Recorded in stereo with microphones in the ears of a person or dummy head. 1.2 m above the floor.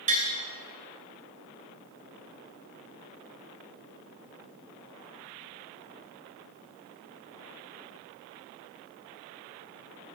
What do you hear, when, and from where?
0.1 s tapping: 35° right (ahead or behind), 2.5 m